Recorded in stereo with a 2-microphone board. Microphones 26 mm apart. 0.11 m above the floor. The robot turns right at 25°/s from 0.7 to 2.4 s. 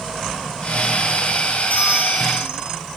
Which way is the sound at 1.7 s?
55° left (ahead or behind).